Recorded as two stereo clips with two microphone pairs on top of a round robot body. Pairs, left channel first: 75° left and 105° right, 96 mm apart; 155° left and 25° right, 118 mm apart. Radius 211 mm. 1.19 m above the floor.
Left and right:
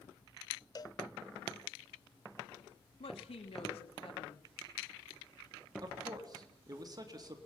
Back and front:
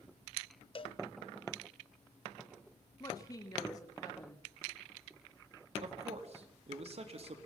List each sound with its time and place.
0.8 s a cowbell: 115° left, 0.6 m
3.0 s a woman speaking: 95° left, 3 m
5.8 s a man speaking: 55° right, 3.5 m